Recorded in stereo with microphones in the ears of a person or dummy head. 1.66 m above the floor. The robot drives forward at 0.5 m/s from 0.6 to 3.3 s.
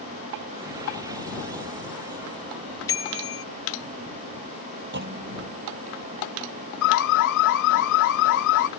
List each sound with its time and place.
2.9 s a bicycle bell: 20° left (ahead or behind); by 3.4 s 25° left (ahead or behind)
4.9 s a clunk: 55° right (ahead or behind)
6.8 s an alarm: 65° left (ahead or behind)